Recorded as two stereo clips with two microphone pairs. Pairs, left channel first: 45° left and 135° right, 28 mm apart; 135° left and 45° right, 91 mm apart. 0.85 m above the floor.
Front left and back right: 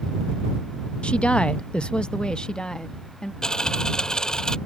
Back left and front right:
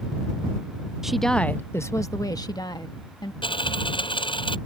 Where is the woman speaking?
35° left; by 3.3 s 110° left.